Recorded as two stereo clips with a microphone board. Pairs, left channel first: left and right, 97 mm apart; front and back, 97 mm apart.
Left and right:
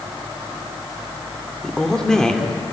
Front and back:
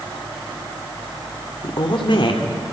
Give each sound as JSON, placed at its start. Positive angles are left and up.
{"t": 1.6, "sound": "a woman speaking", "azimuth_deg": 5, "distance_m": 2.5}